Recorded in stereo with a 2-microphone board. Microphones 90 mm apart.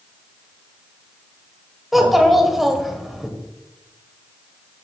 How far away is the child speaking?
About 1.5 m.